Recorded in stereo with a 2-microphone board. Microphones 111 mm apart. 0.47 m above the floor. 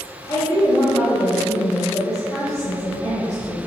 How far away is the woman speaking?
About 1.6 m.